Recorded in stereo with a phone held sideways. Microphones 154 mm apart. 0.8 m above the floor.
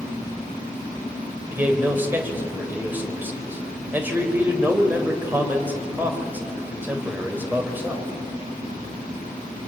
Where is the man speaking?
15° right (ahead or behind), 3.5 m.